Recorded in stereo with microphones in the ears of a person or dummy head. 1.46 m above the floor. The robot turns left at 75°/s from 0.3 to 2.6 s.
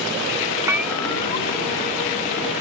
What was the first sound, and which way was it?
A bell, 160° right.